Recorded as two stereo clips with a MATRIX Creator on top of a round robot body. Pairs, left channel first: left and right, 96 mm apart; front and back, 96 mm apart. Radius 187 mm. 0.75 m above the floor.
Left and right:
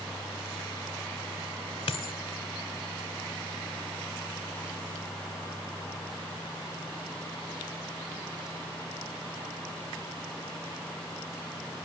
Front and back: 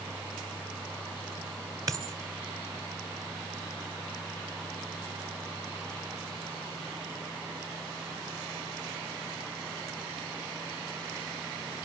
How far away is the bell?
No bell in this recording.